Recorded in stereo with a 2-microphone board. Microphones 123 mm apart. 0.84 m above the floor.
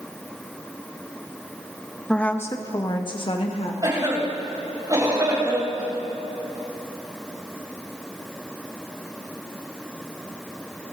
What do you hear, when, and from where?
2.1 s a woman speaking: 5° left (ahead or behind), 0.9 m; by 3.7 s 55° left (ahead or behind), 1.6 m
3.8 s a cough: 30° right (ahead or behind), 5.5 m